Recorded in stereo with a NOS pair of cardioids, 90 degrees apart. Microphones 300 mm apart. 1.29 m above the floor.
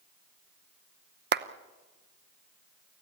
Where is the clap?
35° right, 0.9 m.